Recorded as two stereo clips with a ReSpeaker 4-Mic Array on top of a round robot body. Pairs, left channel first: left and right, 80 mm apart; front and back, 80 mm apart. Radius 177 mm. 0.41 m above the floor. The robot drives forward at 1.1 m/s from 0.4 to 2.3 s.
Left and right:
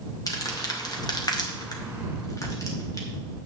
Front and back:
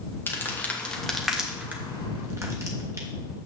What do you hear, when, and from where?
0.3 s crumpling: 60° left, 2.0 m; by 3.4 s 130° left, 2 m